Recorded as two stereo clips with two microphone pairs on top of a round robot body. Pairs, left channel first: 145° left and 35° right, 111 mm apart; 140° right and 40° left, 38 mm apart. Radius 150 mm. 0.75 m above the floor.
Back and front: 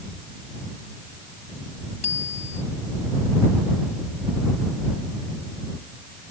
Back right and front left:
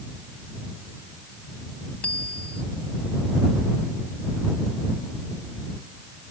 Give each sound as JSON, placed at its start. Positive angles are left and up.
{"t": 2.0, "sound": "a bicycle bell", "azimuth_deg": 170}